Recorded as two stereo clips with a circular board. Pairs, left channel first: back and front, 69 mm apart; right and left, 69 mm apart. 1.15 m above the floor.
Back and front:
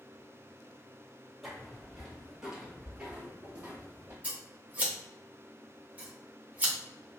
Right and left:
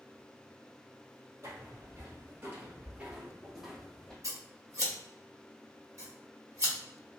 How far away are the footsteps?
About 1.7 m.